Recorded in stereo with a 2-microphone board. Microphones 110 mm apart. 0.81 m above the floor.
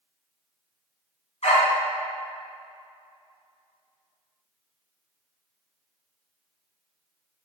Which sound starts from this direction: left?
A dog barking, at 1.4 s.